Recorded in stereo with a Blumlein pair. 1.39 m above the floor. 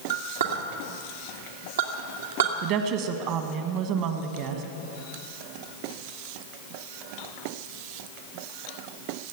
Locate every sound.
0.1 s a clink: 65° right, 1.7 m
2.6 s a woman speaking: 40° right, 1.6 m